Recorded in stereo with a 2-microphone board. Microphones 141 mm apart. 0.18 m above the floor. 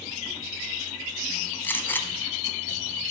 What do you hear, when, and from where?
1.6 s a gunshot: 15° left (ahead or behind), 1.1 m